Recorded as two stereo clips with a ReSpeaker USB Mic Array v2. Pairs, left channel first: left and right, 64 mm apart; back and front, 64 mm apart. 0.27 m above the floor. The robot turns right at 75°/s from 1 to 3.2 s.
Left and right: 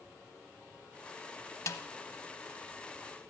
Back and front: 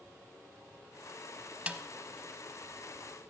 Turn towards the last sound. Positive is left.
turn(degrees=180)